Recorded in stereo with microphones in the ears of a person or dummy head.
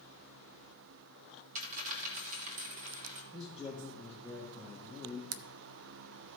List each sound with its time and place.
1.6 s a dropped coin: 40° right (ahead or behind), 1.3 m
3.3 s a man speaking: 5° right (ahead or behind), 1.5 m
5.3 s a camera shutter: 70° right (ahead or behind), 0.5 m